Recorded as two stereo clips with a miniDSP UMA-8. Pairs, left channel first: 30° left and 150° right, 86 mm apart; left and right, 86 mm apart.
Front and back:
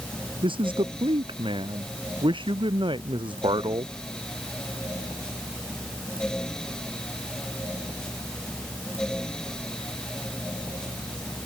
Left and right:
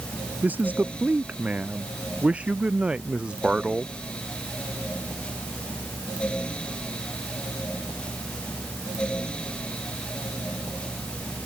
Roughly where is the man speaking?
Behind.